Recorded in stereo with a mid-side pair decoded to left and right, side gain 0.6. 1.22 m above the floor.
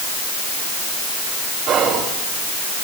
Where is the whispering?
50° right, 3 m.